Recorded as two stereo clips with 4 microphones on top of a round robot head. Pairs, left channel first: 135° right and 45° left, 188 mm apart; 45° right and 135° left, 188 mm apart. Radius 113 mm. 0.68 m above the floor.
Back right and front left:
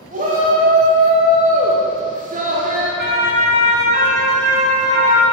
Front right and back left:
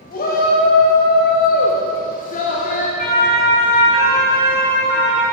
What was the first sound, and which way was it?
A shout, 5° right.